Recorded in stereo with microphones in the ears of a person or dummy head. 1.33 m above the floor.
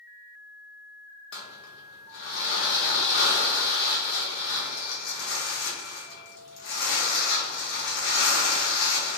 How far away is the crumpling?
About 0.7 m.